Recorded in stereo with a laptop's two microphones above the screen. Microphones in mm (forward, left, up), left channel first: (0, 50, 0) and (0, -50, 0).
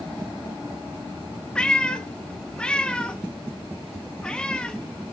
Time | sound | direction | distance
1.6 | a cat meowing | 10° left (ahead or behind) | 0.6 m